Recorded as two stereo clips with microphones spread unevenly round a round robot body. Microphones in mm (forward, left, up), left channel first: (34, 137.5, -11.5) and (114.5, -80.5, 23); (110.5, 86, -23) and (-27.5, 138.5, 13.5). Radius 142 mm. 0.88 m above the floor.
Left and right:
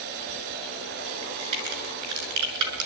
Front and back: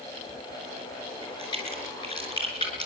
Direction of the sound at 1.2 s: 95° right.